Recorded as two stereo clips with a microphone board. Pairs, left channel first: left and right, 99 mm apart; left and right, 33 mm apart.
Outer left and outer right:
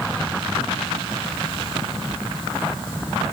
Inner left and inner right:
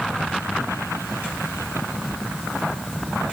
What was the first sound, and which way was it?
Only background noise.